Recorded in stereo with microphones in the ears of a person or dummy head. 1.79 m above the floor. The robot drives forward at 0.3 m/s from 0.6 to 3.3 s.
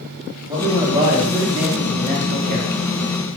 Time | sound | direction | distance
0.5 | a man speaking | 20° right (ahead or behind) | 1.1 m